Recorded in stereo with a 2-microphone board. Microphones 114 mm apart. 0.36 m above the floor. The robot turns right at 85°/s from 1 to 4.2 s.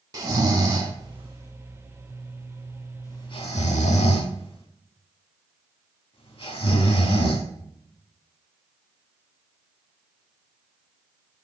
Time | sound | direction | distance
0.1 | snoring | 35° right (ahead or behind) | 0.6 m